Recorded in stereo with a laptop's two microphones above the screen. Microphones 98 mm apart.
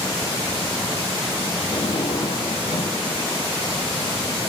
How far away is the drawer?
About 9 m.